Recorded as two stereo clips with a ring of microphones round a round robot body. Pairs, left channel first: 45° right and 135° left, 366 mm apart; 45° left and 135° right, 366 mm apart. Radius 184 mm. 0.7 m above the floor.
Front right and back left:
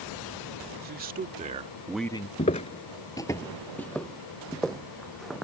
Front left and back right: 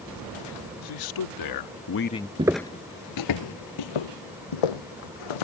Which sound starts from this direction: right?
Footsteps, at 2.4 s.